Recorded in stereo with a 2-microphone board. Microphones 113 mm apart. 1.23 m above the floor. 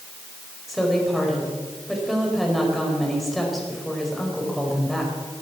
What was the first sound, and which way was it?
A woman speaking, centre (ahead or behind).